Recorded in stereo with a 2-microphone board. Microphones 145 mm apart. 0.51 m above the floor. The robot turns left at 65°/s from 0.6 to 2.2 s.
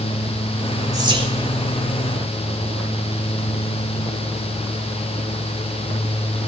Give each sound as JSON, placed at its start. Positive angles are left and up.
{"t": 0.9, "sound": "whispering", "side_deg": -25, "distance_m": 1.3}